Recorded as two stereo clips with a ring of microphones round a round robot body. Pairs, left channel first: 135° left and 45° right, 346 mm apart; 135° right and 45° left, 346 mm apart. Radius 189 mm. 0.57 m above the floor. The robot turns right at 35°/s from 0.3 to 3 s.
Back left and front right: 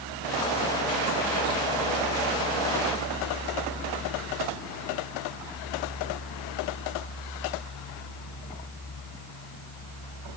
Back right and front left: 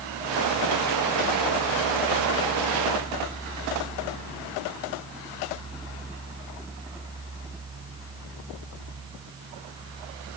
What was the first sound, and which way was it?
Only background noise.